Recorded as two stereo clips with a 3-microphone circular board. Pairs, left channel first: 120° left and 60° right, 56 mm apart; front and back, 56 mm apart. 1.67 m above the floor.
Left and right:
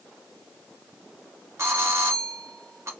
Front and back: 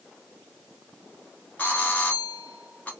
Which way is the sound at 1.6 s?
60° right.